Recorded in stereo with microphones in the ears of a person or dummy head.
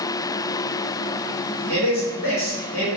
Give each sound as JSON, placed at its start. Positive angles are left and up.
{"t": 1.7, "sound": "a man speaking", "side_deg": 45, "distance_m": 2.0}